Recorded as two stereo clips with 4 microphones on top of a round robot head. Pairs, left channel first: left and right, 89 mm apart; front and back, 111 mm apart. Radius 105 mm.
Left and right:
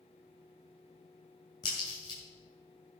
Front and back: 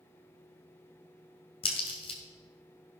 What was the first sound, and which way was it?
A crack, 35° left.